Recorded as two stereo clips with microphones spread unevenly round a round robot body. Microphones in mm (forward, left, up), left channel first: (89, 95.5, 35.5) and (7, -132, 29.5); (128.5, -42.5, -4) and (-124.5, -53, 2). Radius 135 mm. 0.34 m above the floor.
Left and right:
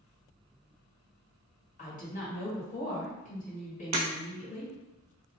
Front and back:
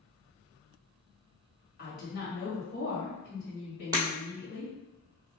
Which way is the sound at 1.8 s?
35° left.